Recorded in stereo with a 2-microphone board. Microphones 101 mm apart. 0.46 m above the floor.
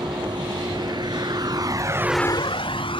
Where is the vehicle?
50° right (ahead or behind); by 3.0 s 60° left (ahead or behind).